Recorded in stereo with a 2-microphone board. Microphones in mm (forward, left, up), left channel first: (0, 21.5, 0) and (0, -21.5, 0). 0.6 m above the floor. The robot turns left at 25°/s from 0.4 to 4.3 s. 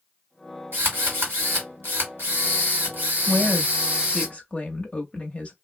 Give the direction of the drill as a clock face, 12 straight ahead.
2 o'clock.